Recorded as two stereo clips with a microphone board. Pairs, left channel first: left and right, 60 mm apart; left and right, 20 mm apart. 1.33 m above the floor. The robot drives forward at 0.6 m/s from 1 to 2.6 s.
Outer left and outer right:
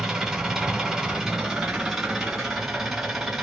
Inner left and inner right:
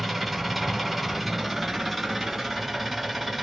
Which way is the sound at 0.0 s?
5° right (ahead or behind).